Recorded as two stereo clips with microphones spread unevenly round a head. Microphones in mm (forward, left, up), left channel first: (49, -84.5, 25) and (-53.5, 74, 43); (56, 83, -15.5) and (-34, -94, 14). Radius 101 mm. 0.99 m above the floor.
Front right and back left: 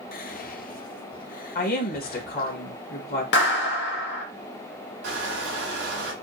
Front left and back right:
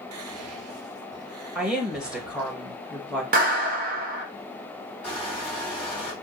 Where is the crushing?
160° left, 3 m.